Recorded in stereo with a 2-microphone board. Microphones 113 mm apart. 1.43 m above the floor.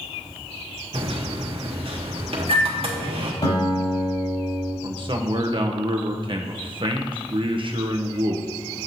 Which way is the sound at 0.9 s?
55° right (ahead or behind).